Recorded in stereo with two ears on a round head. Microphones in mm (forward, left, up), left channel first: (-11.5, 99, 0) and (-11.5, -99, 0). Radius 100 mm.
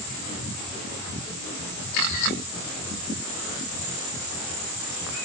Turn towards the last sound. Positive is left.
No sound to turn to.